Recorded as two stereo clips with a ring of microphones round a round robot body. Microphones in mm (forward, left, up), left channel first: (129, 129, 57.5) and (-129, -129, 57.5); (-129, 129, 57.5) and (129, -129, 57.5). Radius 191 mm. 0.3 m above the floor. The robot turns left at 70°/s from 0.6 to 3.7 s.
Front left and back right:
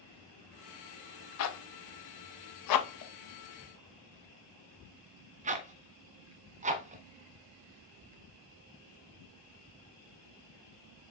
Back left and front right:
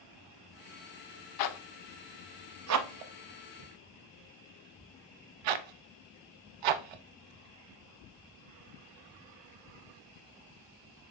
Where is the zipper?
100° left, 0.7 m; by 11.1 s 65° right, 0.7 m.